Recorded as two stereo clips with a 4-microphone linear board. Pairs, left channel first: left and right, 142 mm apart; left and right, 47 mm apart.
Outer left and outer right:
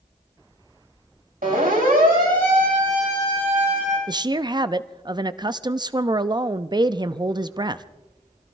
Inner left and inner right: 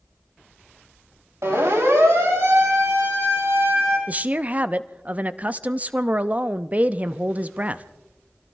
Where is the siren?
75° right (ahead or behind), 4 m; by 4.0 s 70° right (ahead or behind), 6 m.